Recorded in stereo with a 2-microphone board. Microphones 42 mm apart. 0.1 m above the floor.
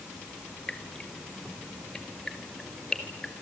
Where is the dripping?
15° left (ahead or behind), 2.0 m.